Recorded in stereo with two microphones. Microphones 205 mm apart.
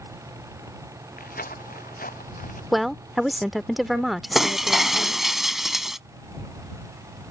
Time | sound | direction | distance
1.2 | footsteps | 45° left (ahead or behind) | ?
2.7 | a woman speaking | centre (ahead or behind) | ?
4.3 | breaking glass | centre (ahead or behind) | ?